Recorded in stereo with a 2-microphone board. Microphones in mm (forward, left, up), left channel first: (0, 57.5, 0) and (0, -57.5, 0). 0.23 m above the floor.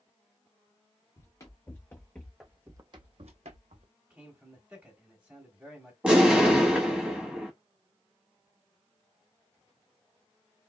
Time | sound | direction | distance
1.2 | running footsteps | 30° left (ahead or behind) | 1.1 m
4.1 | a man speaking | 15° right (ahead or behind) | 1.7 m
6.0 | an explosion | 10° right (ahead or behind) | 0.8 m